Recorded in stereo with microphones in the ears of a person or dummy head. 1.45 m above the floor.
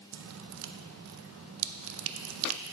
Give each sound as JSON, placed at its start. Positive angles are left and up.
{"t": 0.1, "sound": "dripping", "side_deg": -80, "distance_m": 0.6}